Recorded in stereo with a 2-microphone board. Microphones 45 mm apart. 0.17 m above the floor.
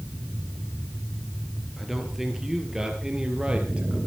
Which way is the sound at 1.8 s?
5° right (ahead or behind).